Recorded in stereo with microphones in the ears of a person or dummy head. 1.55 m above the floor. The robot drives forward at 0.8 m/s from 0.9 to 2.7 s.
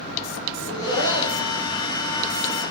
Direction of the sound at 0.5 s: 75° left (ahead or behind).